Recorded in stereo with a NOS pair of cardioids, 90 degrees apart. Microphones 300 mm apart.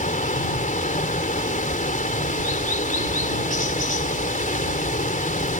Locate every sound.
0.0 s running water: 25° left